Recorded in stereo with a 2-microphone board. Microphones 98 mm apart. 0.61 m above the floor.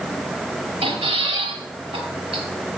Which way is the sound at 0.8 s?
85° right.